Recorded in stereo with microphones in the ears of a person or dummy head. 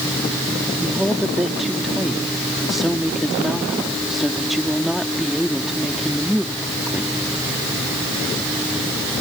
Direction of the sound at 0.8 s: Centre (ahead or behind).